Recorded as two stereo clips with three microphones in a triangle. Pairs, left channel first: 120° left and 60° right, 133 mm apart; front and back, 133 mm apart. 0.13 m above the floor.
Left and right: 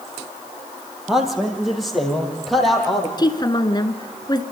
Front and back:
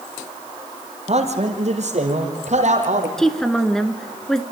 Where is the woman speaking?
85° left, 1.5 m.